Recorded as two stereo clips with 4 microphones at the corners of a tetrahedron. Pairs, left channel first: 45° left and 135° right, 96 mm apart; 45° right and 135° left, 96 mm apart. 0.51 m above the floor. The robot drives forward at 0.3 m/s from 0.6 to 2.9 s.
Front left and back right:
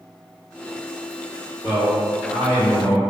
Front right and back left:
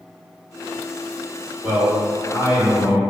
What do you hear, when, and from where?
1.6 s a man speaking: 165° right, 1.7 m; by 3.0 s 170° right, 2.0 m